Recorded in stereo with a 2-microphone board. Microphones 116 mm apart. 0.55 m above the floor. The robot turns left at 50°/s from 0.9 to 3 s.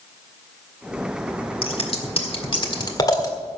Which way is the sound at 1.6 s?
50° left (ahead or behind).